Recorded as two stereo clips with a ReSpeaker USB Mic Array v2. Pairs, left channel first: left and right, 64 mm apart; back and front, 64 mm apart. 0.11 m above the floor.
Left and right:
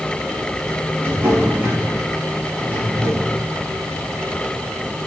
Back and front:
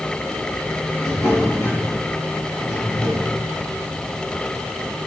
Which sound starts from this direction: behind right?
A drawer, at 1.0 s.